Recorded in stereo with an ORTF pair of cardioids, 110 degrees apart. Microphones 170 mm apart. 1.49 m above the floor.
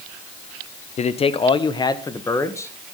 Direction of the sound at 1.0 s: 40° left.